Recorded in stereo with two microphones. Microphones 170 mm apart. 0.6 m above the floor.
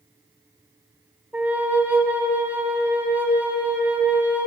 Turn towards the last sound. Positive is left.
turn(degrees=-10)  # may be behind; listen again after turning